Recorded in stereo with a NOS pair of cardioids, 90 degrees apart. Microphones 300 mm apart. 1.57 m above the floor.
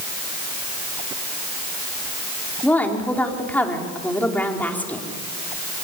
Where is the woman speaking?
5° left, 4.5 m.